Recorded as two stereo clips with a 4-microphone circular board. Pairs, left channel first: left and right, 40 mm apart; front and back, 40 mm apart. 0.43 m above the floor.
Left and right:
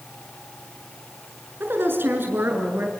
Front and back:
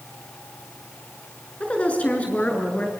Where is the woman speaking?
60° right, 6 m; by 2.9 s 55° right, 6.5 m.